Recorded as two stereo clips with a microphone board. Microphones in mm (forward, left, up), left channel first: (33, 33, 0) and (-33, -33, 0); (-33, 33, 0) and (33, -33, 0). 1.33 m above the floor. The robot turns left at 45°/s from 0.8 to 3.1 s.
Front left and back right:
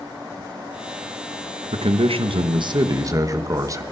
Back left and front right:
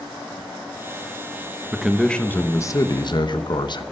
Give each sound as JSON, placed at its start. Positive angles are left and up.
{"t": 1.7, "sound": "a man speaking", "azimuth_deg": -125, "distance_m": 1.1}